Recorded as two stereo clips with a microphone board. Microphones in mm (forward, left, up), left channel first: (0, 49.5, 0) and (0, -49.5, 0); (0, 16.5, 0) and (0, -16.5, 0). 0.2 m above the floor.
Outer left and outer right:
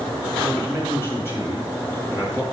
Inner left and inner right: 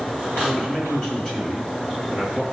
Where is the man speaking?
25° left (ahead or behind), 3 m.